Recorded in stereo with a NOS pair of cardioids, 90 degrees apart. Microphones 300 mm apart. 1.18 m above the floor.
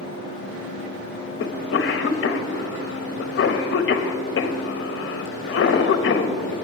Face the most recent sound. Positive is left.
turn(degrees=45)